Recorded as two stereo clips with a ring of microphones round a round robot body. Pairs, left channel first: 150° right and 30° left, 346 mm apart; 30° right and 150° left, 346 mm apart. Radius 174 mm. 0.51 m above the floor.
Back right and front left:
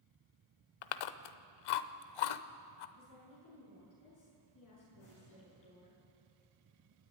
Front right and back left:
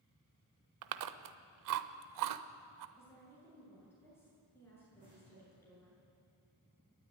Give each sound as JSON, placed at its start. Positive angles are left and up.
{"t": 0.8, "sound": "chewing", "azimuth_deg": -170, "distance_m": 0.8}
{"t": 3.0, "sound": "a woman speaking", "azimuth_deg": -115, "distance_m": 8.5}
{"t": 5.0, "sound": "an explosion", "azimuth_deg": -135, "distance_m": 7.5}